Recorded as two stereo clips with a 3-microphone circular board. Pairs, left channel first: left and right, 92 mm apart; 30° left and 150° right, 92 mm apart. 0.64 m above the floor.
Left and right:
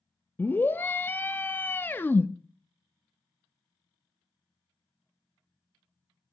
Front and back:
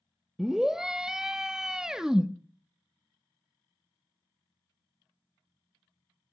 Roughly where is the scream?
Behind left.